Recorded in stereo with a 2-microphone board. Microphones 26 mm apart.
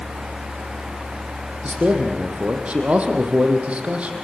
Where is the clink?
No clink in this recording.